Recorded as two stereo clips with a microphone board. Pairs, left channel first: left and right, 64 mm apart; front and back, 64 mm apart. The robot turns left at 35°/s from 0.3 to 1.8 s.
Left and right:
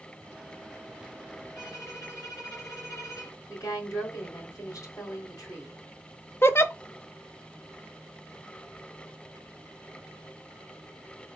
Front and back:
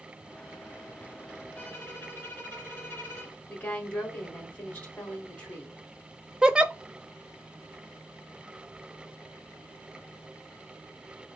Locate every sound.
1.6 s a violin: 65° left, 2 m; by 3.4 s 60° left, 2 m
3.5 s a woman speaking: 65° left, 3 m
6.4 s a giggle: 110° left, 0.5 m